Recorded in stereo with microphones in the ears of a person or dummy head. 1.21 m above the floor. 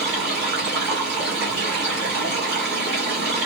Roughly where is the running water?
Right.